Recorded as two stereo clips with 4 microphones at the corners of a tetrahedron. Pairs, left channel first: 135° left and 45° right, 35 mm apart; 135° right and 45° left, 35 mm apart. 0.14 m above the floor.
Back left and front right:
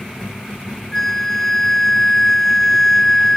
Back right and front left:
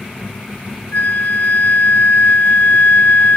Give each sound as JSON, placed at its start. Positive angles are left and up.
{"t": 0.9, "sound": "a flute", "azimuth_deg": -145}